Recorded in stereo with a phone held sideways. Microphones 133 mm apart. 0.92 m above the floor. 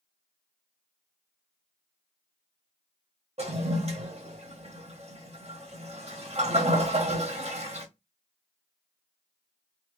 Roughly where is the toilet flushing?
Right.